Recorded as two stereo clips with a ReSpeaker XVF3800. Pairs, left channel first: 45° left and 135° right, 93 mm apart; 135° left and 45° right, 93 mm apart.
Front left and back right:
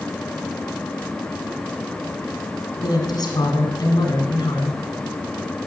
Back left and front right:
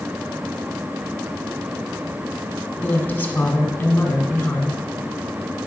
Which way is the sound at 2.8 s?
70° left.